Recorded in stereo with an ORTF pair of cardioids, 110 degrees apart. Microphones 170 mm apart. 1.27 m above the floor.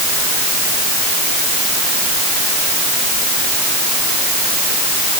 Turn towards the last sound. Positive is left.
No sound to turn to.